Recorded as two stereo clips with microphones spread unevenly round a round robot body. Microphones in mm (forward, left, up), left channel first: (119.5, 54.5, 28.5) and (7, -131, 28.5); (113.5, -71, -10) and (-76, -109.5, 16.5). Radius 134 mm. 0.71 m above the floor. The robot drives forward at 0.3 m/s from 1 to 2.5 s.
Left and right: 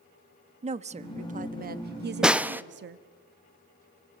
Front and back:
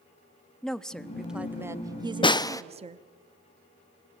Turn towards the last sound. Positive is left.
turn(degrees=-45)